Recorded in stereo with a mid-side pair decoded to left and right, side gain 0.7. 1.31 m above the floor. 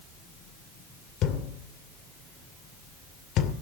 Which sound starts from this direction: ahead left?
A thud, at 1.2 s.